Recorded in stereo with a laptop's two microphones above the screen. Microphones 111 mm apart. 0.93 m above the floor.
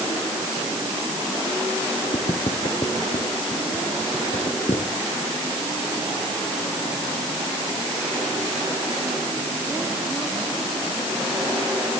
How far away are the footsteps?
About 4 m.